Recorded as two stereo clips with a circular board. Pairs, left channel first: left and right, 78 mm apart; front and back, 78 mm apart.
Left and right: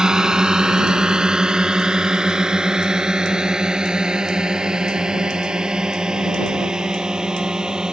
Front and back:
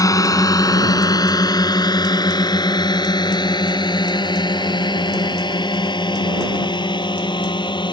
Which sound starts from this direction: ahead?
A drone, at 0.0 s.